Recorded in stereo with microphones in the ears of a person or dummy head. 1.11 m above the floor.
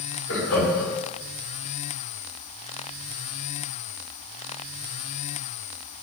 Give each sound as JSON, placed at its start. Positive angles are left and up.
{"t": 0.3, "sound": "laughter", "side_deg": 70, "distance_m": 4.5}